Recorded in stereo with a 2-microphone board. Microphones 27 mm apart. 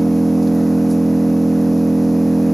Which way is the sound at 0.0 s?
5° right (ahead or behind).